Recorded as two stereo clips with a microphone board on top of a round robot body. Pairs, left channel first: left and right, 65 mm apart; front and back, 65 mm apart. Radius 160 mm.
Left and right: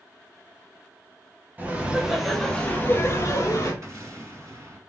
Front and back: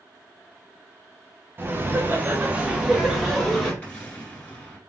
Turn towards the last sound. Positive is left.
turn(degrees=-65)